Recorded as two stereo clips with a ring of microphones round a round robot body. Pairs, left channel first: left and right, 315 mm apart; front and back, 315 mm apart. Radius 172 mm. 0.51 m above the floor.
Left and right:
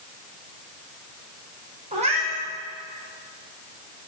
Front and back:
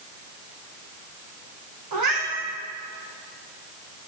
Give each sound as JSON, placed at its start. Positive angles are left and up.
{"t": 1.9, "sound": "a cat meowing", "azimuth_deg": -160, "distance_m": 7.0}